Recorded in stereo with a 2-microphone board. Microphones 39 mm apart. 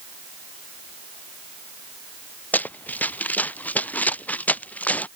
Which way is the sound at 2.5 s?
45° left (ahead or behind).